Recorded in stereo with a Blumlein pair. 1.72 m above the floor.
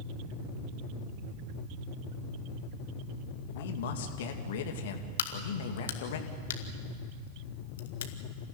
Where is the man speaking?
55° left, 2.5 m.